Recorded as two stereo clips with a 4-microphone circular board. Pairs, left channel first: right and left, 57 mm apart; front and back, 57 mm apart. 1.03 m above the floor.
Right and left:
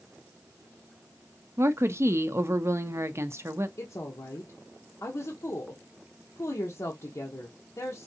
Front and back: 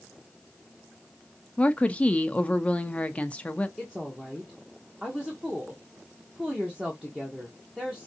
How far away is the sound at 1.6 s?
About 0.6 m.